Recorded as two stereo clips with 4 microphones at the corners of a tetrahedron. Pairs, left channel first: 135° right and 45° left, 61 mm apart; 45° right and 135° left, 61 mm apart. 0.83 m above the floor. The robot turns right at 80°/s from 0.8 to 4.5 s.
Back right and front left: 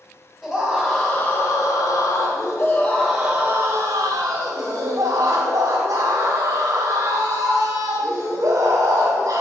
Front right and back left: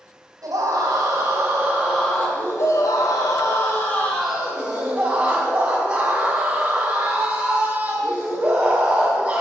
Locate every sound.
0.4 s a scream: 145° left, 3 m; by 9.4 s 80° left, 3 m